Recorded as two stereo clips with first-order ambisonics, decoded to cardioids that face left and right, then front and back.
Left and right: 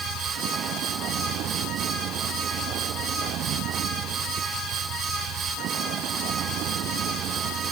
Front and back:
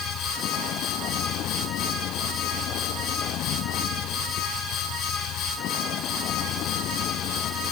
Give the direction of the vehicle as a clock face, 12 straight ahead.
1 o'clock.